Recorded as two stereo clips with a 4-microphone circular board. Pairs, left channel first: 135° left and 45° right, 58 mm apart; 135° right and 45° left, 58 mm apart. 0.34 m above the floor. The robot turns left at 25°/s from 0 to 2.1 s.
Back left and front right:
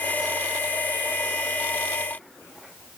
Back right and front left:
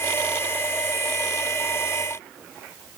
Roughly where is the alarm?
I don't hear an alarm.